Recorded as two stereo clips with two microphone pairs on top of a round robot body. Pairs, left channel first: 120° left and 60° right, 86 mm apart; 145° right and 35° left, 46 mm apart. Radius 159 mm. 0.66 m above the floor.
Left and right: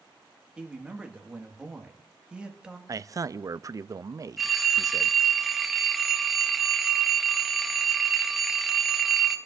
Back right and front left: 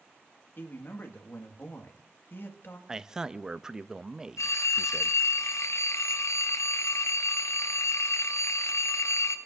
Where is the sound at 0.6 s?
130° right, 1.7 m.